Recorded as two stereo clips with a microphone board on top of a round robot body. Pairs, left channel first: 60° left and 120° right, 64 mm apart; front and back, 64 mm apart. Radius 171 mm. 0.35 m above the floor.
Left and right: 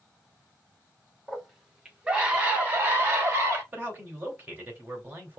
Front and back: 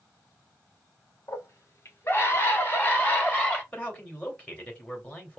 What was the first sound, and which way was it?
A scream, 35° right.